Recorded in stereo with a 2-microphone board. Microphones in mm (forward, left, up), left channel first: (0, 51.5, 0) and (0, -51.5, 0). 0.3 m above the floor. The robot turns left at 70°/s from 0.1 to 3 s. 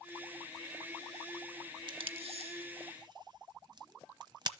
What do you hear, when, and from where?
1.9 s tape being pulled: 50° right (ahead or behind), 0.7 m; by 4.5 s 45° right (ahead or behind), 0.7 m